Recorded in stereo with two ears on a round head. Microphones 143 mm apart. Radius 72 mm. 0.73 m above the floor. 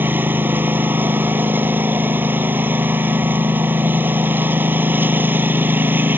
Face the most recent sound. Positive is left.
turn(degrees=-10)  # may be behind; listen again after turning